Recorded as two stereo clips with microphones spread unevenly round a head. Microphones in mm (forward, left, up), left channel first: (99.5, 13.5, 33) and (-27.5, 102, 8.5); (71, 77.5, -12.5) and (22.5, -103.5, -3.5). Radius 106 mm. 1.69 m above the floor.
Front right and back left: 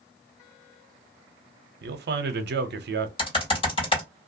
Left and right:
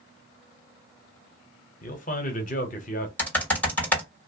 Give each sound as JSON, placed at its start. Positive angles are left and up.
{"t": 1.8, "sound": "a man speaking", "azimuth_deg": 130, "distance_m": 0.8}
{"t": 3.2, "sound": "typing on a keyboard", "azimuth_deg": -5, "distance_m": 2.0}